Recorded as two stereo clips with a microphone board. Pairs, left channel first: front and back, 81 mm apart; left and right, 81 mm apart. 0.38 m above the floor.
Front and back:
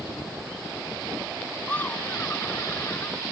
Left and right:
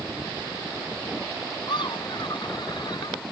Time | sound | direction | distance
1.7 | laughter | 70° left | ?